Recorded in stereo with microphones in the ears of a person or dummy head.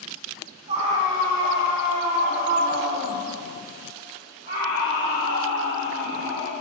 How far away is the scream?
About 1.1 m.